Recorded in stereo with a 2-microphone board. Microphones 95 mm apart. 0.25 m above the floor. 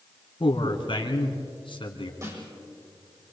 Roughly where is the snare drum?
Right.